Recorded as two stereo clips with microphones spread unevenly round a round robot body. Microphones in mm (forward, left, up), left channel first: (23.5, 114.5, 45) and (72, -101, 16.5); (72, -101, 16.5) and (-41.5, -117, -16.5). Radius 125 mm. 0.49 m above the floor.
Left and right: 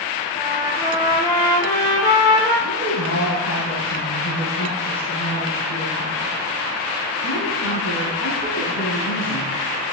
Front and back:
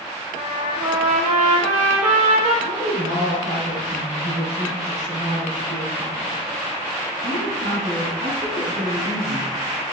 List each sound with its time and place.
0.3 s a trumpet: straight behind, 5.5 m
2.6 s a woman speaking: 130° left, 4.5 m